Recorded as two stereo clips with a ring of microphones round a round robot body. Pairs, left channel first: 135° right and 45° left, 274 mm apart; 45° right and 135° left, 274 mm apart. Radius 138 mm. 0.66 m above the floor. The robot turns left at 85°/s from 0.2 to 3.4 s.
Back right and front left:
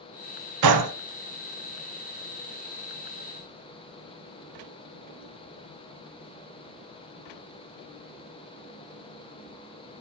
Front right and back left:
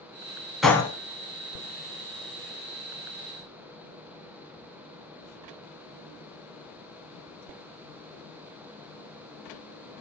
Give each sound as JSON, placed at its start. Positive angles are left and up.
{"t": 0.6, "sound": "a gunshot", "azimuth_deg": 45, "distance_m": 0.8}